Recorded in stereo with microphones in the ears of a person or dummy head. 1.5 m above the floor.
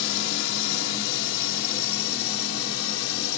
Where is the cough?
No cough in this recording.